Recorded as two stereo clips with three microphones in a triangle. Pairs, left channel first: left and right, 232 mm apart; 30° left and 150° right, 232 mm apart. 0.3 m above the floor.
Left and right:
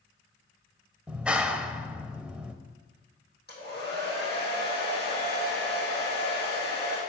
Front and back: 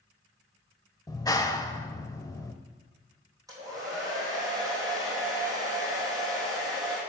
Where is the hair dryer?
135° left, 4 m.